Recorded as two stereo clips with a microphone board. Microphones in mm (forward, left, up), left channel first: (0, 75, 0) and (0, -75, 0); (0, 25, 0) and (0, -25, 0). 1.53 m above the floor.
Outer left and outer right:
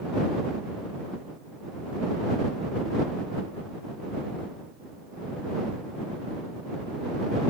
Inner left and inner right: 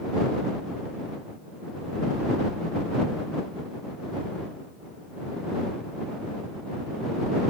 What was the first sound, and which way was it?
Only background noise.